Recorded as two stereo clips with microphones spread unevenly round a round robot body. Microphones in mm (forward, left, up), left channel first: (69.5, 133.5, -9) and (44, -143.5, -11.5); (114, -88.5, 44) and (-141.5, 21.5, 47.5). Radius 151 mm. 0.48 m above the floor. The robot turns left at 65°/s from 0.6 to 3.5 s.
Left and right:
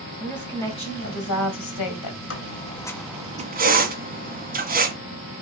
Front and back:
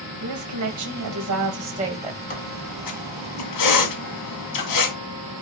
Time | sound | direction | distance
0.2 | a woman speaking | 170° left | 2.5 m
2.3 | a squeak | 45° left | 2.0 m